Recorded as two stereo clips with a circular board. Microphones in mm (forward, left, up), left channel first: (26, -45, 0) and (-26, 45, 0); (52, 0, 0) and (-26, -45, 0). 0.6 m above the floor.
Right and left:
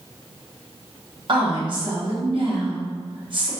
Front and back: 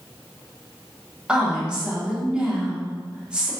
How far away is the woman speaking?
About 1.0 m.